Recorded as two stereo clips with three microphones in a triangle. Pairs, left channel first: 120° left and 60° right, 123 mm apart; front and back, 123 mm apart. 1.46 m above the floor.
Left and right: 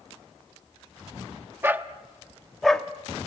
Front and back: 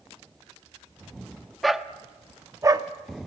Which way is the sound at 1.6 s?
90° right.